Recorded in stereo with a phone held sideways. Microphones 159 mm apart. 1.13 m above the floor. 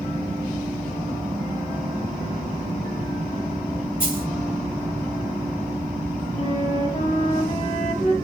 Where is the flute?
50° left (ahead or behind), 2.5 m.